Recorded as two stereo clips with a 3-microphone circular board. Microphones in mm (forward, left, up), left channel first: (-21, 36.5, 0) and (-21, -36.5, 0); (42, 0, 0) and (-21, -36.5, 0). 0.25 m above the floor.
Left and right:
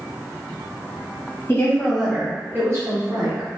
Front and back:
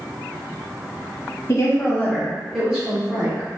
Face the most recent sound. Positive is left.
turn(degrees=-95)